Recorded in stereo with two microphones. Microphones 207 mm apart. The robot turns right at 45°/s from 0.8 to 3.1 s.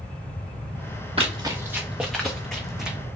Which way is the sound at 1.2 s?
30° right (ahead or behind).